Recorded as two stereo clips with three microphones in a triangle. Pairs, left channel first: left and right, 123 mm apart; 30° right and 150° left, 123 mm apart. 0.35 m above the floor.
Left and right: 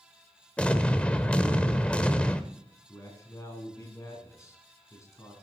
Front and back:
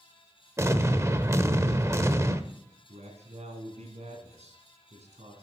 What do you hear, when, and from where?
0.6 s an explosion: 155° left, 0.8 m
2.9 s a man speaking: 150° left, 3 m